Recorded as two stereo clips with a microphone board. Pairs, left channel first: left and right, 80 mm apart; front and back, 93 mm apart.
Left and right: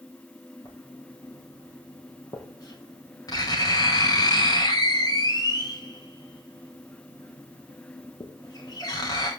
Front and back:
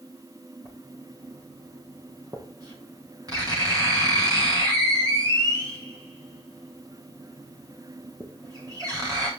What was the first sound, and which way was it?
Writing, 130° left.